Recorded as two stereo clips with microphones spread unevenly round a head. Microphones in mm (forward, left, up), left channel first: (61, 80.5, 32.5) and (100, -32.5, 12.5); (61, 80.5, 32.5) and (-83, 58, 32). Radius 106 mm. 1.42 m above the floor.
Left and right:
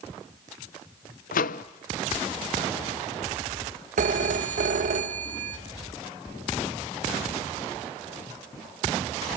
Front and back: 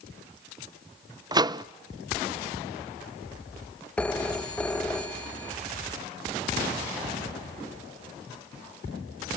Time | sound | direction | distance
1.3 | a microwave | 125° left | 0.5 m
4.0 | a phone ringing | 75° right | 0.9 m